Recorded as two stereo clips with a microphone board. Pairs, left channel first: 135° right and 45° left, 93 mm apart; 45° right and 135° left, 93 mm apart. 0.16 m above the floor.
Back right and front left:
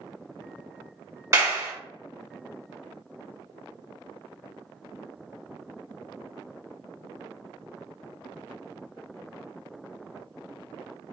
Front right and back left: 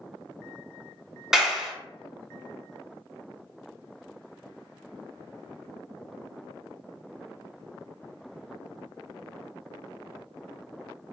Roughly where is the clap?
Ahead left.